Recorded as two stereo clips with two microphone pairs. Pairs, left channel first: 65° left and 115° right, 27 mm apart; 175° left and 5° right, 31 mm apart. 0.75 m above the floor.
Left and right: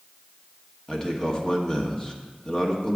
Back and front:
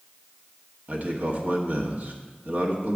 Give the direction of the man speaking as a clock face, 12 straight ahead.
12 o'clock.